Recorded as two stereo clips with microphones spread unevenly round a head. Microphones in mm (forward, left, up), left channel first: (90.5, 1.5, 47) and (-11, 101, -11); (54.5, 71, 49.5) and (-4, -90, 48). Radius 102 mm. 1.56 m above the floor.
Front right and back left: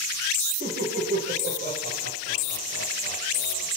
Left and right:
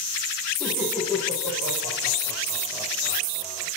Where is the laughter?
160° left, 9.5 m; by 3.7 s 170° left, 9 m.